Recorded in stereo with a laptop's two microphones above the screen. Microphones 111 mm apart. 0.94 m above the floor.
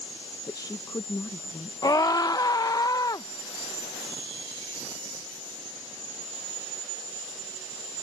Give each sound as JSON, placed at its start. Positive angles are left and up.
{"t": 0.5, "sound": "a woman speaking", "side_deg": 35}
{"t": 1.8, "sound": "a scream", "side_deg": 35}